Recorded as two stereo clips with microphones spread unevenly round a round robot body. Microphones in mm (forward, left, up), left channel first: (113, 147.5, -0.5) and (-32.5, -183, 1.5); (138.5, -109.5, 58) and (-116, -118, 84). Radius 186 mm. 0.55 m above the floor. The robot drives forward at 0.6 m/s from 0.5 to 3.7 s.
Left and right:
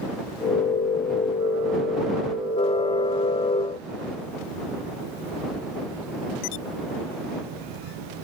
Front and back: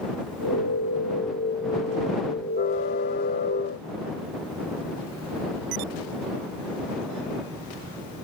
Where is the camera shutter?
I don't hear a camera shutter.